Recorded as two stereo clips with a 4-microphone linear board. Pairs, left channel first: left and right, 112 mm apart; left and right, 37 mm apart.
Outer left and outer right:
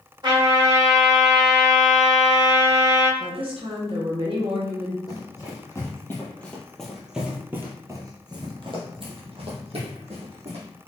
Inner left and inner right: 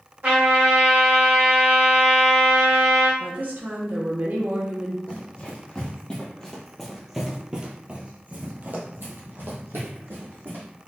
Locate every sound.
0.2 s a trumpet: 45° right (ahead or behind), 1.7 m
3.2 s a woman speaking: 55° right (ahead or behind), 0.9 m
5.1 s running footsteps: 35° left (ahead or behind), 1.9 m; by 10.7 s 70° right (ahead or behind), 2 m